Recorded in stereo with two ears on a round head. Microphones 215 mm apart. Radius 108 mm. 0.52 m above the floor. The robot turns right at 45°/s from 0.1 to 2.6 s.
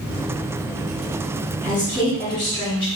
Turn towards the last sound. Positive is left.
turn(degrees=20)  # may be behind; listen again after turning